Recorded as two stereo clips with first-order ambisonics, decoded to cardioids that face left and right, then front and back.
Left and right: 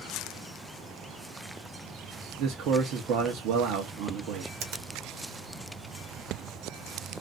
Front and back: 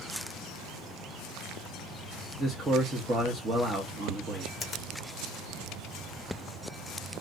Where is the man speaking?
115° right, 0.8 m.